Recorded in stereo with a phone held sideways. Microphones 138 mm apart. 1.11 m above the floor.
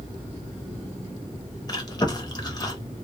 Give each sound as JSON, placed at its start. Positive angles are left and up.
{"t": 1.7, "sound": "chewing", "side_deg": 30, "distance_m": 0.9}